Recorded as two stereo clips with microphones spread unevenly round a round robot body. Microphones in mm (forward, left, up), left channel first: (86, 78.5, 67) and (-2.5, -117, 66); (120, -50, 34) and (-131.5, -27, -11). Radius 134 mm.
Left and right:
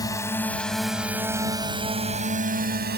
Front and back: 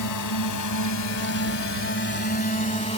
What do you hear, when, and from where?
0.0 s a drone: 10° right; by 3.0 s 75° right